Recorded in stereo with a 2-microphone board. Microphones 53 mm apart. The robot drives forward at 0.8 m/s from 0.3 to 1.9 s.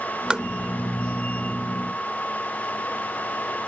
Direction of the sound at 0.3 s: 15° right (ahead or behind).